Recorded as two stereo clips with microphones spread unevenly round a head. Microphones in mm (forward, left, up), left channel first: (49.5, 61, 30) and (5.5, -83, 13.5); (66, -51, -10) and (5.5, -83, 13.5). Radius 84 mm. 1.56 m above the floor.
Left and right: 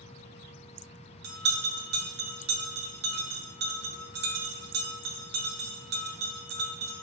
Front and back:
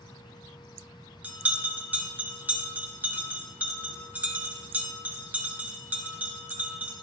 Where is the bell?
95° right, 1.7 m.